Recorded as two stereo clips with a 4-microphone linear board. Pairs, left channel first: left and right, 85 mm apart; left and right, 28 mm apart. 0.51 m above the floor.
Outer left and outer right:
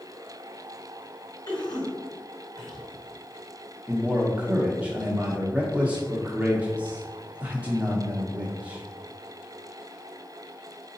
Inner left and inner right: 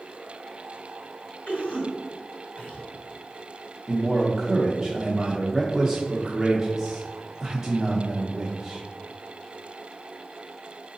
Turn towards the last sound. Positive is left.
turn(degrees=-15)  # may be behind; listen again after turning